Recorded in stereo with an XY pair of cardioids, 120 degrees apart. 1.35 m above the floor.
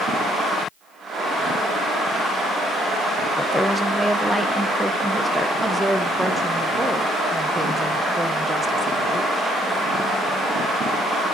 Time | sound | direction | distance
3.4 | a woman speaking | 5° left | 0.9 m
5.6 | a woman speaking | 5° right | 1.3 m